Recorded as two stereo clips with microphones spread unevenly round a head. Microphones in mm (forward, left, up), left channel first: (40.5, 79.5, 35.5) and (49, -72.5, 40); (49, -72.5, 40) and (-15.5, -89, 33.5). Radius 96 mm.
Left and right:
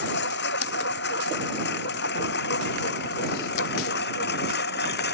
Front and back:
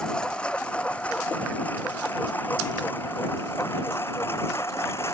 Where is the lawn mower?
100° left; by 5.1 s 85° left.